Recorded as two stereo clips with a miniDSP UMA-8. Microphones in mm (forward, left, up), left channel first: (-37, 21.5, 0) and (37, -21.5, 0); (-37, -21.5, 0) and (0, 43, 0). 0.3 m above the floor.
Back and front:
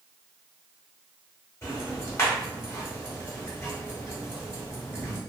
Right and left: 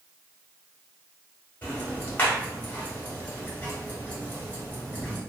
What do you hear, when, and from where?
1.6 s ticking: 175° right, 1.2 m